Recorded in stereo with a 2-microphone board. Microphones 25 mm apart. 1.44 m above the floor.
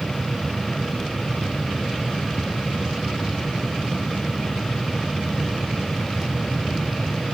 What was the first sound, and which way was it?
Only background noise.